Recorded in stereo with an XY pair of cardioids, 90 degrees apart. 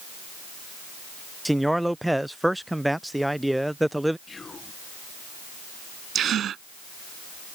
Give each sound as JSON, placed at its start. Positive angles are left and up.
{"t": 1.4, "sound": "a man speaking", "azimuth_deg": -5}
{"t": 4.3, "sound": "whispering", "azimuth_deg": 40}
{"t": 6.2, "sound": "a gasp", "azimuth_deg": -70}